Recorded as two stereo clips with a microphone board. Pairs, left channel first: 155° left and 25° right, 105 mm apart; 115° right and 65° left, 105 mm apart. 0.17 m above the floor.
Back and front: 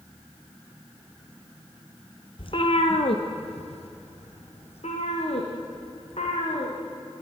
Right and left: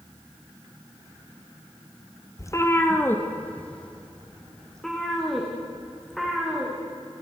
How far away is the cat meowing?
About 1.9 m.